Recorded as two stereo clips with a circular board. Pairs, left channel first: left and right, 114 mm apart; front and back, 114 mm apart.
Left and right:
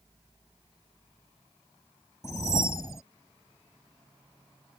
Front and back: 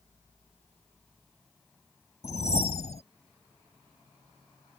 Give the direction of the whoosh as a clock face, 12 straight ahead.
11 o'clock.